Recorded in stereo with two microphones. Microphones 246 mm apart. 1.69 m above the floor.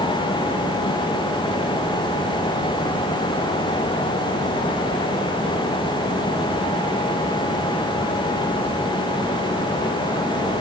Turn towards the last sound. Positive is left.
No sound to turn to.